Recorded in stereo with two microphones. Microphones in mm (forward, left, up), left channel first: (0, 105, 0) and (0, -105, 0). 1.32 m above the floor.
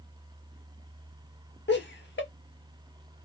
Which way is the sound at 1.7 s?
60° left (ahead or behind).